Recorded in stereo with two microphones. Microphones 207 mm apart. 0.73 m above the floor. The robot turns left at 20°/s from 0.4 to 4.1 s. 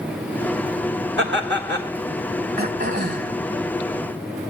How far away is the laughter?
About 3 m.